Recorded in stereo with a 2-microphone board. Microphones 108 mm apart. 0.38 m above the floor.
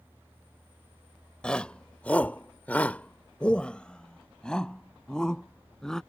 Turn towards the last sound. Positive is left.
turn(degrees=5)  # may be behind; listen again after turning